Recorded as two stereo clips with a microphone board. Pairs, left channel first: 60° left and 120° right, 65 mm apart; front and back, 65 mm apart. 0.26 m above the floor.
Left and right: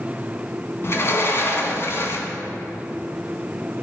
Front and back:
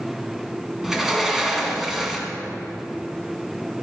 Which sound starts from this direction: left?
A sliding door, at 0.8 s.